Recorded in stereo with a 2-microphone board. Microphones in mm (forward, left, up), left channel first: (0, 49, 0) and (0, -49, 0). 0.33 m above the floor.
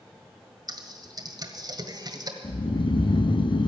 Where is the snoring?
55° left (ahead or behind), 0.5 m.